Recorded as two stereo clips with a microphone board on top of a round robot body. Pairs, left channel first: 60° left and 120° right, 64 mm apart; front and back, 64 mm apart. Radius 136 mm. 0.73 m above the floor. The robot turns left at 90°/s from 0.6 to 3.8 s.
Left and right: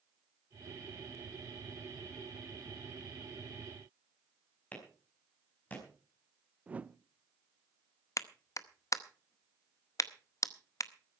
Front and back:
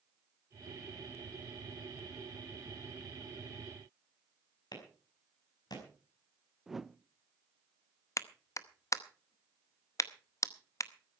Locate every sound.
4.7 s a clap: 10° right, 5 m
6.7 s a whoosh: 100° right, 0.7 m
8.2 s a clap: 30° left, 1.0 m